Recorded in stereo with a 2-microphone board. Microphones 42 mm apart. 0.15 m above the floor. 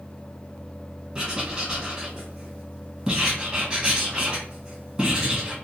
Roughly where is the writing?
Centre.